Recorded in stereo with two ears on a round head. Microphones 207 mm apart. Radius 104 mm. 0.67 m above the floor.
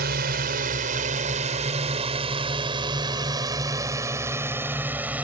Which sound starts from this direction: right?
A drone, at 0.0 s.